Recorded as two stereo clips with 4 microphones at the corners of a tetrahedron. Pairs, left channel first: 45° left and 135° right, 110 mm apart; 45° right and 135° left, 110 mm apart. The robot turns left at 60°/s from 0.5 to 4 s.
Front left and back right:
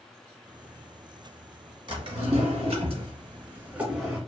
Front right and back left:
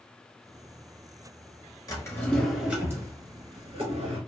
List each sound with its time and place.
1.9 s a drawer: 95° right, 1.2 m; by 4.2 s 135° left, 1.2 m